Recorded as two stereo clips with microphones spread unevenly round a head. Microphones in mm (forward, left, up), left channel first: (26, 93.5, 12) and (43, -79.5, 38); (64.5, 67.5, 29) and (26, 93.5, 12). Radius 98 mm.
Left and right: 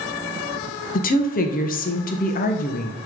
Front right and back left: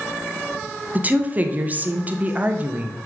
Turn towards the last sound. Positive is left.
turn(degrees=115)